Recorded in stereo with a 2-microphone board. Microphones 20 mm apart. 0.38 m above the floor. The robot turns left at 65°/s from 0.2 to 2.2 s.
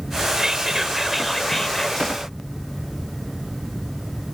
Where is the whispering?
125° right; by 2.2 s 120° left.